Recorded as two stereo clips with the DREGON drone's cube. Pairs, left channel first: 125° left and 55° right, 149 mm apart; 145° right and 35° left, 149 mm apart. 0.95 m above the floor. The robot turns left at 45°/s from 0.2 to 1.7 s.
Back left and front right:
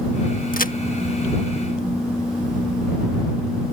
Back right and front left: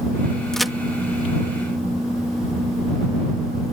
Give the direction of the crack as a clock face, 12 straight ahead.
8 o'clock.